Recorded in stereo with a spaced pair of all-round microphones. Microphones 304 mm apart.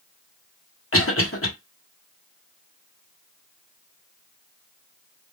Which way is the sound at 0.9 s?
45° left (ahead or behind).